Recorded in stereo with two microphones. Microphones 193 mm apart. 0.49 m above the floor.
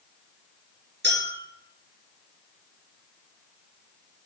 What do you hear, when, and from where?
1.0 s a clink: 65° right (ahead or behind), 3.5 m